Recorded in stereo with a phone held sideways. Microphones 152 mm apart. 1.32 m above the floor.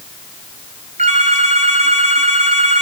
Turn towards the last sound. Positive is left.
turn(degrees=-45)  # may be behind; listen again after turning